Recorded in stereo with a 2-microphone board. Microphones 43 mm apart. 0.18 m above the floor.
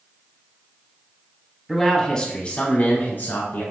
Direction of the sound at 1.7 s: 5° right (ahead or behind).